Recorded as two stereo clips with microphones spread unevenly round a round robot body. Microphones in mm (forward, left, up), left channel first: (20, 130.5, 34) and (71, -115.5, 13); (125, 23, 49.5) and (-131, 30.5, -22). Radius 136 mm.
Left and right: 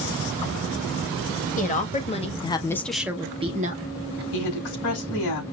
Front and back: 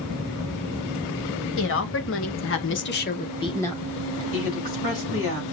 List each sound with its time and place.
1.6 s a woman speaking: 45° left, 1.6 m; by 4.2 s 115° right, 1.3 m
4.3 s a woman speaking: 60° left, 4.5 m